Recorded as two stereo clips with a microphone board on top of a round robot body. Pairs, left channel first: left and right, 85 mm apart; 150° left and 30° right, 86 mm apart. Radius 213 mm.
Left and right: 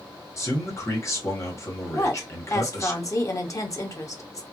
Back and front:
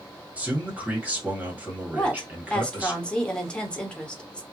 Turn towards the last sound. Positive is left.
turn(degrees=80)